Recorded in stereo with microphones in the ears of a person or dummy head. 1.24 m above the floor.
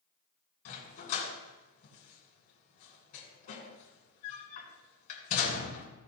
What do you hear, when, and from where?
0.7 s a dog barking: 40° left (ahead or behind), 3 m